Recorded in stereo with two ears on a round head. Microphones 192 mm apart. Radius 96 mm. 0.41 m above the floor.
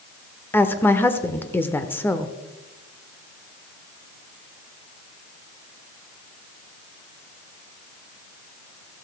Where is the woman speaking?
10° left (ahead or behind), 0.9 m.